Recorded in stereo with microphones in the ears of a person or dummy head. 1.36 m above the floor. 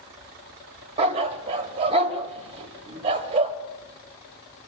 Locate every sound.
1.0 s a dog barking: 35° right (ahead or behind), 2.5 m